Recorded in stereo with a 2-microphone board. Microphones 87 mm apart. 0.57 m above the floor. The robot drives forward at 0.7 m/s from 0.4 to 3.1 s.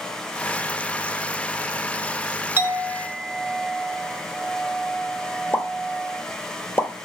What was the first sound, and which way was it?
A clink, 25° right (ahead or behind).